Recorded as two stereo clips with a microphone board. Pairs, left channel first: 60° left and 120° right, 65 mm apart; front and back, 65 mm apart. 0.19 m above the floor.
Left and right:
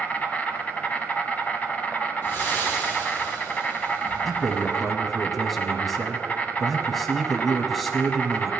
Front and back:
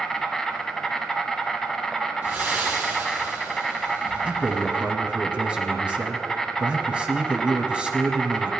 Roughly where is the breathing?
Behind left.